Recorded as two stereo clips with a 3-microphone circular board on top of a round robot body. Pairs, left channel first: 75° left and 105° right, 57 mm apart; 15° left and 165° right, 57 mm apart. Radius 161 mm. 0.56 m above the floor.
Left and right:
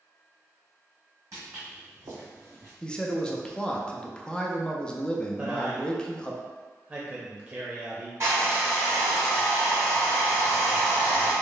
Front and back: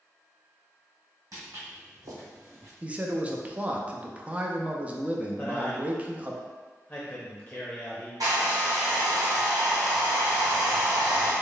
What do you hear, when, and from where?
1.3 s footsteps: 140° right, 1.5 m; by 2.7 s 145° right, 0.7 m
2.8 s a man speaking: 140° left, 0.7 m
5.4 s a man speaking: 50° right, 0.8 m
8.2 s a hair dryer: 150° right, 1.1 m